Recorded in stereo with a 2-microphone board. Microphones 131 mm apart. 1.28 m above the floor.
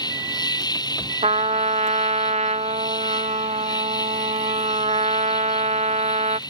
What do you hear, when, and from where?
0.0 s an insect: 30° left (ahead or behind)
1.2 s a trumpet: 55° right (ahead or behind)